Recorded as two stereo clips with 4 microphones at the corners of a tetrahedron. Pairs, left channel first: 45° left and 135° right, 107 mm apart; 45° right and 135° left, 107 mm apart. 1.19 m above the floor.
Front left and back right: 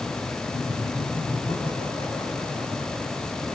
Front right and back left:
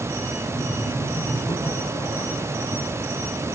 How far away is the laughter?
About 8.5 m.